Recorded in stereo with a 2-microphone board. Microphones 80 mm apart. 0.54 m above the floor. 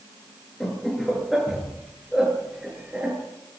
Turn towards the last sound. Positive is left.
turn(degrees=-15)  # may be behind; listen again after turning